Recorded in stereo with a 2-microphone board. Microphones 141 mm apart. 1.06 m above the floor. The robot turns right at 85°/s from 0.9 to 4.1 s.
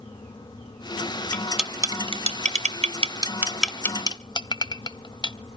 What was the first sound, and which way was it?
Cutlery clinking, 15° left (ahead or behind).